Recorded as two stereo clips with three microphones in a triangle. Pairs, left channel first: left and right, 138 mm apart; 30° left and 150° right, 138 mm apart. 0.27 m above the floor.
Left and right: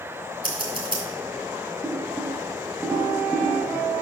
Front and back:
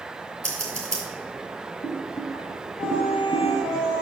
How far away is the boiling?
About 0.8 m.